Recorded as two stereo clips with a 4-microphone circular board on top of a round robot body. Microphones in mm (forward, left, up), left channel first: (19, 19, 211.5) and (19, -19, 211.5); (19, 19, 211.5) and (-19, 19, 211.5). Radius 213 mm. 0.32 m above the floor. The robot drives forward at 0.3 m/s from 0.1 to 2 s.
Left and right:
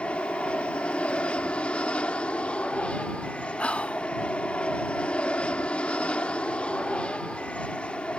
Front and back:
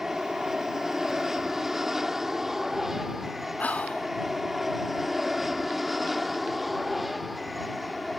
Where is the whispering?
40° left.